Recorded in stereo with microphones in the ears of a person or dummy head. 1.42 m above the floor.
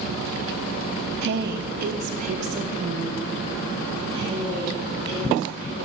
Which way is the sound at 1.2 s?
65° right (ahead or behind).